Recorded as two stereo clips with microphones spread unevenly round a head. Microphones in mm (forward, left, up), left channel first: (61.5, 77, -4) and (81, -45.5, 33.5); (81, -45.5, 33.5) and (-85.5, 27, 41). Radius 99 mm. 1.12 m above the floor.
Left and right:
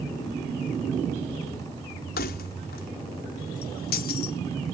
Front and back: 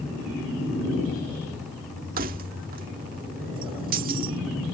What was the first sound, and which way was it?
Keys jangling, 110° left.